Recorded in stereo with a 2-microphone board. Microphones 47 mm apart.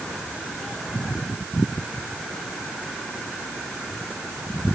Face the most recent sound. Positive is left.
No sound to turn to.